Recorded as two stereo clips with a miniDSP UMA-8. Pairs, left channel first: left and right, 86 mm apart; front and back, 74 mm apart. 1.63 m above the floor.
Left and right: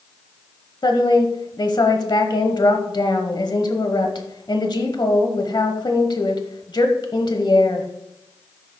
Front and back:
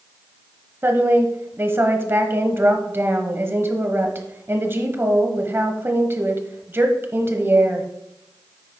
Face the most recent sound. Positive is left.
turn(degrees=120)